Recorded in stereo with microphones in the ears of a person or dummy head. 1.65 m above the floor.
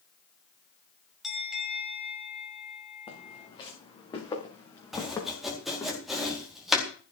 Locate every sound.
1.2 s a bell: 5° right (ahead or behind), 3 m
3.1 s footsteps: 25° left (ahead or behind), 7.5 m; by 5.9 s 10° left (ahead or behind), 7.5 m
4.9 s chopping: 5° right (ahead or behind), 4.5 m